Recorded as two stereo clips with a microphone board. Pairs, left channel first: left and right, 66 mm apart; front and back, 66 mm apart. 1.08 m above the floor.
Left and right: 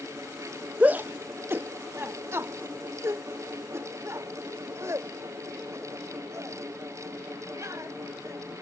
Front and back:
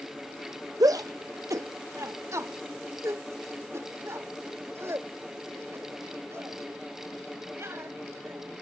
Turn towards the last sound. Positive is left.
turn(degrees=-135)